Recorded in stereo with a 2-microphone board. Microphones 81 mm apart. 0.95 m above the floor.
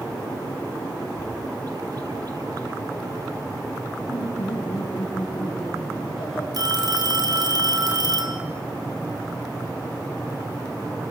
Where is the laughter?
90° left, 7.5 m.